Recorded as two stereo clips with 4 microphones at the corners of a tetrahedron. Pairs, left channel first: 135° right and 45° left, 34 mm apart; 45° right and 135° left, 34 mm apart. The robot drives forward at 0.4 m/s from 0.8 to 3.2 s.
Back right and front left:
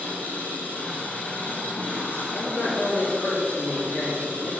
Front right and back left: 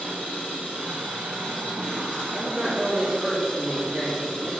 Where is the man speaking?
110° right, 2.5 m; by 4.5 s 120° right, 3 m.